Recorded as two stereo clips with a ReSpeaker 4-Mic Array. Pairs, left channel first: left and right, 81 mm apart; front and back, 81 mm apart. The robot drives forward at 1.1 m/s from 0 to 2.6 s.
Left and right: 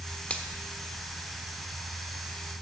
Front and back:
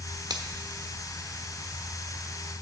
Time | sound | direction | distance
0.3 | a finger snap | 160° left | 1.0 m